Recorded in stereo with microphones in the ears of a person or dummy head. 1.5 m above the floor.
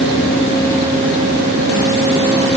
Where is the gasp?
No gasp in this recording.